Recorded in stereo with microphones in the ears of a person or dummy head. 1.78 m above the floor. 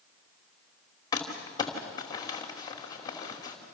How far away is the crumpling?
About 2.5 m.